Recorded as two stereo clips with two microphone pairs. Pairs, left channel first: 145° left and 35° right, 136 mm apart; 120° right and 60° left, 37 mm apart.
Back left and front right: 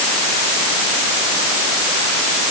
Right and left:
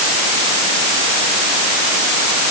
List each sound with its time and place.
Only background noise.